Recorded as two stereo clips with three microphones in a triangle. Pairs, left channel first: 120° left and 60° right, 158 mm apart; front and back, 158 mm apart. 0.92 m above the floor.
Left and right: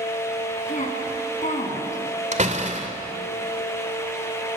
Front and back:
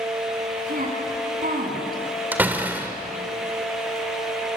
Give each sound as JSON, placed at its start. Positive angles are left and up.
{"t": 0.7, "sound": "a woman speaking", "azimuth_deg": 155, "distance_m": 8.5}
{"t": 2.3, "sound": "a door slam", "azimuth_deg": -100, "distance_m": 2.0}